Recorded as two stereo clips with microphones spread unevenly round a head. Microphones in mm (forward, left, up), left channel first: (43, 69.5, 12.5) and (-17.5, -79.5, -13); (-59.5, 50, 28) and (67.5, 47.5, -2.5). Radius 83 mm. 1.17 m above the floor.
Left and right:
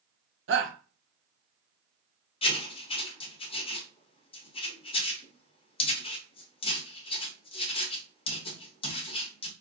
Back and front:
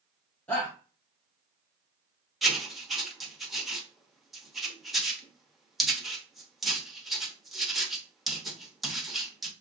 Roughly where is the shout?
Right.